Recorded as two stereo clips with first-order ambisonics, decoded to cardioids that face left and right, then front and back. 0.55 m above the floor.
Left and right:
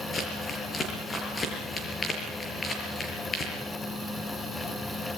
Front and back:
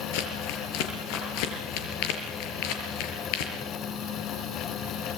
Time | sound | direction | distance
0.1 | crumpling | 15° left | 5.5 m